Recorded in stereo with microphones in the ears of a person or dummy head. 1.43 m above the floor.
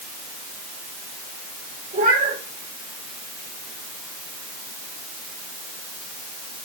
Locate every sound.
1.9 s a cat meowing: 40° right (ahead or behind), 3 m